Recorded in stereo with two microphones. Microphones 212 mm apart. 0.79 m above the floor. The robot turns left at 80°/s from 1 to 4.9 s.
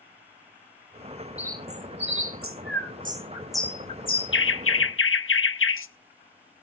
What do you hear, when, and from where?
1.4 s a bird: 5° right (ahead or behind), 0.7 m; by 5.9 s 70° left (ahead or behind), 0.7 m